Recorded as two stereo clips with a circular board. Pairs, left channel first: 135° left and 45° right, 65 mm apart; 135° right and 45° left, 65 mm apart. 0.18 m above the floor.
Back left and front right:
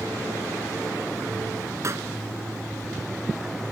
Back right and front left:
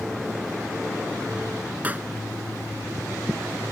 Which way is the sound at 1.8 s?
15° right.